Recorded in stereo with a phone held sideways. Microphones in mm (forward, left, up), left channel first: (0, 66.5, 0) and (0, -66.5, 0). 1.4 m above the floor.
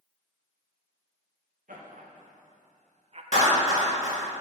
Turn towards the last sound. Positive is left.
turn(degrees=70)  # may be behind; listen again after turning